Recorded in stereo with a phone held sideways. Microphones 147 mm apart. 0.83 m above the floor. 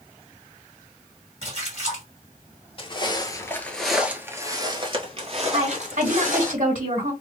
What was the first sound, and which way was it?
A splash, 50° right (ahead or behind).